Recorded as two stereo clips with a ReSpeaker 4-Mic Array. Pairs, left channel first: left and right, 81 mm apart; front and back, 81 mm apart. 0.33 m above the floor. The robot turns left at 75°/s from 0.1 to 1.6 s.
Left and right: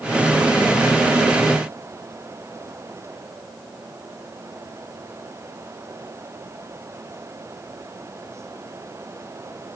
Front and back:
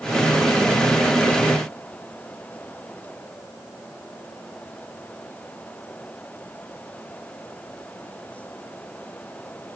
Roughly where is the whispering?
I don't hear whispering.